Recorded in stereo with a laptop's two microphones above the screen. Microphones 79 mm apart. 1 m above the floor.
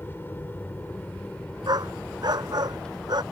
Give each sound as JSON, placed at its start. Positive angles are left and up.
{"t": 0.0, "sound": "an aircraft", "side_deg": 25}
{"t": 1.7, "sound": "a dog barking", "side_deg": -60}